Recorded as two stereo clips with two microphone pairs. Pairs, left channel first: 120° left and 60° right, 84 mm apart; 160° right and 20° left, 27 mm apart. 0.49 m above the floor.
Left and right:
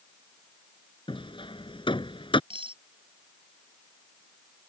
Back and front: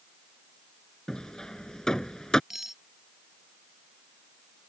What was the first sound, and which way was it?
Hammering, 130° left.